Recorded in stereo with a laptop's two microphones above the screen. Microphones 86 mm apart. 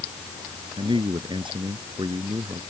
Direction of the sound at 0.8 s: 70° right (ahead or behind).